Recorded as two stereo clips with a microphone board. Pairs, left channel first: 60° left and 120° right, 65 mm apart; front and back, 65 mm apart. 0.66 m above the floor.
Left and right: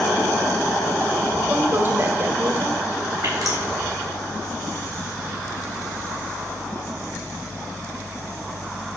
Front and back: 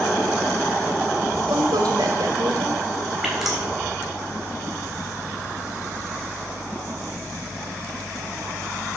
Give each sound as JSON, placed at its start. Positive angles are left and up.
{"t": 1.5, "sound": "a woman speaking", "azimuth_deg": -170, "distance_m": 2.5}
{"t": 3.2, "sound": "dripping", "azimuth_deg": -95, "distance_m": 3.5}